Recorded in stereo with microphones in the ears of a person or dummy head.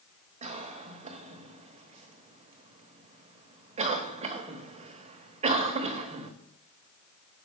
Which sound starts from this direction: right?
A cough, at 0.4 s.